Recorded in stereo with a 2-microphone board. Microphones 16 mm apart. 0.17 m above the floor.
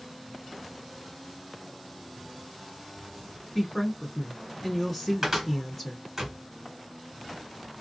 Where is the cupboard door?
20° right (ahead or behind), 1.6 m.